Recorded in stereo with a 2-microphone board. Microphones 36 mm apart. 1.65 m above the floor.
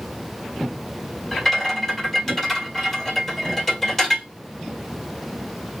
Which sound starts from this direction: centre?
A rattle, at 1.3 s.